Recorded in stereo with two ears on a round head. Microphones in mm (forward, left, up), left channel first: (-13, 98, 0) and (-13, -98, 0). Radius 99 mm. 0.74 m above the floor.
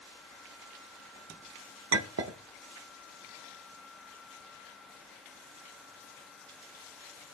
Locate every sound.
1.9 s a clink: 65° right (ahead or behind), 0.7 m